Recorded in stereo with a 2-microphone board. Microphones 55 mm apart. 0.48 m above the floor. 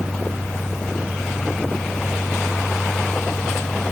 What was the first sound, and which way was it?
Only background noise.